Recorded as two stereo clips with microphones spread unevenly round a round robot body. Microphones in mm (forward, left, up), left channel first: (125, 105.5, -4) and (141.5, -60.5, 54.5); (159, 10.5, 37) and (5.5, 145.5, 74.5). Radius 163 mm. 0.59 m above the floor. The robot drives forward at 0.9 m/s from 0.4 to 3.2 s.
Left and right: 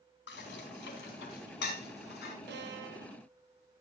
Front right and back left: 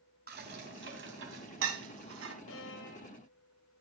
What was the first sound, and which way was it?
Dishes clattering, 100° left.